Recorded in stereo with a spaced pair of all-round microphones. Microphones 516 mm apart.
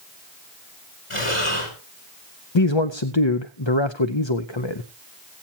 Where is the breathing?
70° left (ahead or behind), 4.5 m.